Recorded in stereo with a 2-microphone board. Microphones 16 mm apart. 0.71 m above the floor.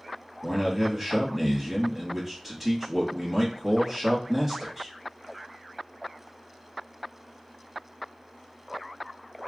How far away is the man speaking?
About 1.0 m.